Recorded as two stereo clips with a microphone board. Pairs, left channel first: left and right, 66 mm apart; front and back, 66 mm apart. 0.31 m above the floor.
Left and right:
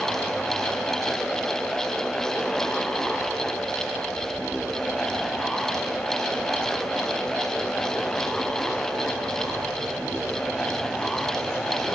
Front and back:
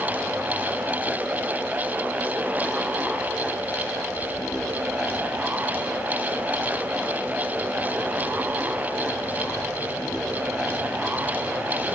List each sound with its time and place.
Only background noise.